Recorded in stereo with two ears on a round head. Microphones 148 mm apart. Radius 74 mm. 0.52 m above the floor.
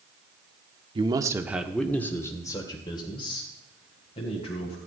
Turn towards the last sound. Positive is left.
turn(degrees=40)  # may be behind; listen again after turning